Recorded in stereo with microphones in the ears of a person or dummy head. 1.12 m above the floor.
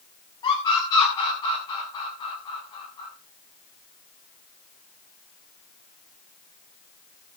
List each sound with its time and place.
0.4 s a scream: 20° left (ahead or behind), 8.5 m